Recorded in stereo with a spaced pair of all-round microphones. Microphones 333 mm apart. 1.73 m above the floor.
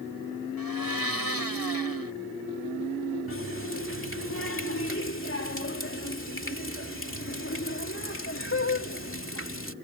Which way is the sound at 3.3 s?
35° left (ahead or behind).